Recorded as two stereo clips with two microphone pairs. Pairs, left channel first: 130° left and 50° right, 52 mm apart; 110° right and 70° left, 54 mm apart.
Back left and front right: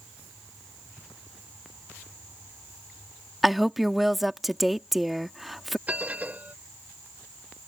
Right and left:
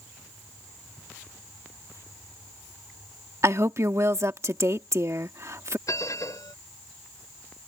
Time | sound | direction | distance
3.4 | a woman speaking | 40° left | ?
5.9 | a bell | 110° right | ?